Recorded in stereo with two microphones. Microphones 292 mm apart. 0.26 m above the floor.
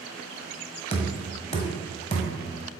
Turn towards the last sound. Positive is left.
turn(degrees=20)  # may be behind; listen again after turning